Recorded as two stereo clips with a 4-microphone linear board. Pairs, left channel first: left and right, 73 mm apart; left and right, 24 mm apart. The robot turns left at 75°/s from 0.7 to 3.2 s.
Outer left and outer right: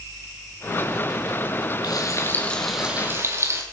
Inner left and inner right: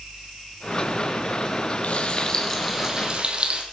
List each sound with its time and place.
1.8 s frying: 65° left, 4 m; by 3.6 s 40° right, 4 m